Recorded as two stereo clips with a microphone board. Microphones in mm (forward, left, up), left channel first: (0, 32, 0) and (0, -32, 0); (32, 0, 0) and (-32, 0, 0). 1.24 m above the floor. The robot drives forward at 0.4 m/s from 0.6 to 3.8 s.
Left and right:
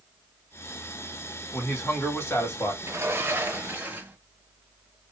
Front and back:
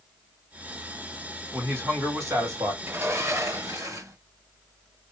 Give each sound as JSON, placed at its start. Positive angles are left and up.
{"t": 1.5, "sound": "a man speaking", "azimuth_deg": 135, "distance_m": 2.5}
{"t": 2.8, "sound": "a sliding door", "azimuth_deg": -135, "distance_m": 0.7}